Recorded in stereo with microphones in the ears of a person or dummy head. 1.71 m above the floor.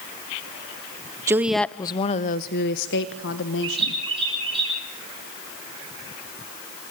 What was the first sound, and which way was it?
A woman speaking, 20° right (ahead or behind).